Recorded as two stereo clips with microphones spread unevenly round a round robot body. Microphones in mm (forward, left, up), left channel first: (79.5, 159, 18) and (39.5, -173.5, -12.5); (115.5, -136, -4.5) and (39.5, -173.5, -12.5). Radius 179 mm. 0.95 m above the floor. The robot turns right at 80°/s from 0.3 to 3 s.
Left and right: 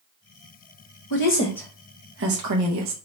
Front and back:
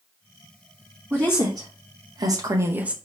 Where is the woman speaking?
135° left, 0.9 m; by 2.9 s 80° right, 0.9 m.